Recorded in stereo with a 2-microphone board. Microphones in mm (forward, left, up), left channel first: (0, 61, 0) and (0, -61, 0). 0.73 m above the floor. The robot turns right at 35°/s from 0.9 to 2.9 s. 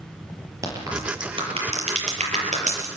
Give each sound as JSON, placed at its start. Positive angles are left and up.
{"t": 0.6, "sound": "a crack", "side_deg": -25, "distance_m": 7.0}